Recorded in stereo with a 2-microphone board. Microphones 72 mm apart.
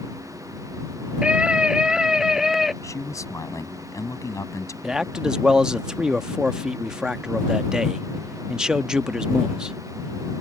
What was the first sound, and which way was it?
A scream, 15° right (ahead or behind).